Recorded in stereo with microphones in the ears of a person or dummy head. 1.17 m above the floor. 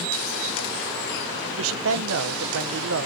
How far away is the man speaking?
About 0.6 m.